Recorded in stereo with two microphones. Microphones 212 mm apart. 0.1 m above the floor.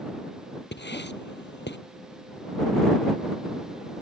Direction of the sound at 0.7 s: 60° left (ahead or behind).